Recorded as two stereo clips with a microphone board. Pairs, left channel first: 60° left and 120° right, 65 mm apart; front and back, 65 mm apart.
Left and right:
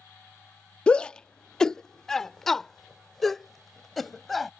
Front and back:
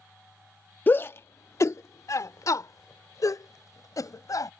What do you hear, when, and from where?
0.9 s a shout: 5° left; by 4.5 s 30° right